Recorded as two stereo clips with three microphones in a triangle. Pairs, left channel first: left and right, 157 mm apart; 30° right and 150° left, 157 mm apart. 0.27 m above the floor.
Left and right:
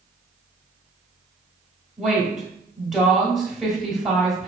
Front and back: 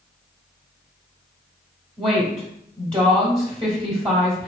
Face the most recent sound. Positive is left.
turn(degrees=-175)